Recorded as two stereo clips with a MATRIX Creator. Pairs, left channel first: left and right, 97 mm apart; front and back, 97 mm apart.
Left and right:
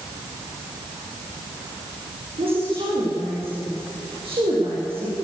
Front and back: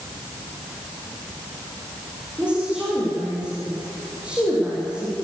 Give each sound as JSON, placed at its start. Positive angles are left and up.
{"t": 2.4, "sound": "a woman speaking", "azimuth_deg": -100, "distance_m": 9.5}